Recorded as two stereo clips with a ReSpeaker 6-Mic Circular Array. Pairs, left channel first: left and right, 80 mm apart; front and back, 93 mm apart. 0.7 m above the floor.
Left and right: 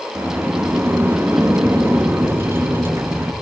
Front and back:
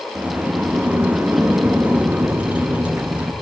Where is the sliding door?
120° right, 0.6 m.